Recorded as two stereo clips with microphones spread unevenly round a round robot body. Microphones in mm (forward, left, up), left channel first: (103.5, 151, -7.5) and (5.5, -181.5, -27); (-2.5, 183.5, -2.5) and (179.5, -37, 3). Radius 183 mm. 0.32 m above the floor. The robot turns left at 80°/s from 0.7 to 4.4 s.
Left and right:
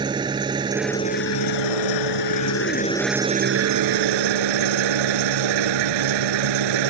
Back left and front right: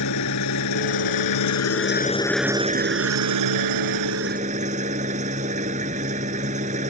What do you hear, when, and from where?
0.0 s an engine running: 175° left; by 6.9 s 120° right